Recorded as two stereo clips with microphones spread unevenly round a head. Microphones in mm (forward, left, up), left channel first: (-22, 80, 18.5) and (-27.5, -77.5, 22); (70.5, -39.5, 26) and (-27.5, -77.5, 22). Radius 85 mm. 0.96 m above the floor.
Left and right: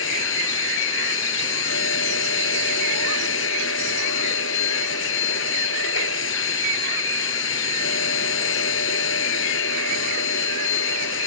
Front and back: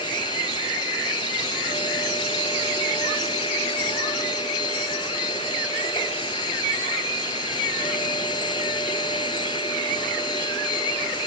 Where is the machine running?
90° left.